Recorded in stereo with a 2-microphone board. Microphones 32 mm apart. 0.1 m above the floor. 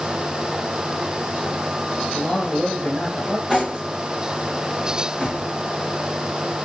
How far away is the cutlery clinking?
About 2 m.